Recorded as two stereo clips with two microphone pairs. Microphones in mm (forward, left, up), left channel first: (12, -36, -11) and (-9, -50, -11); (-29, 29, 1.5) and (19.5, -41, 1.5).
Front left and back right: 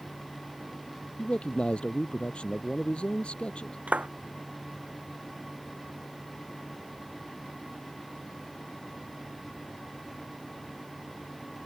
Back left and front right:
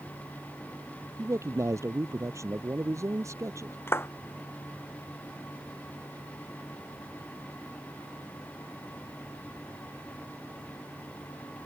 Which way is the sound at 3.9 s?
175° right.